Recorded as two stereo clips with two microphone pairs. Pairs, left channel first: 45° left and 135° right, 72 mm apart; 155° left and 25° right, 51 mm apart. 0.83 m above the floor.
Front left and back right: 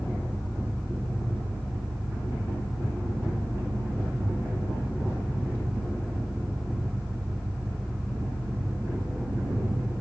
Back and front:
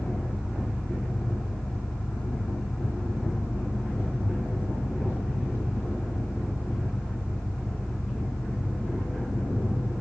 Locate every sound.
0.0 s an engine running: 110° left, 5 m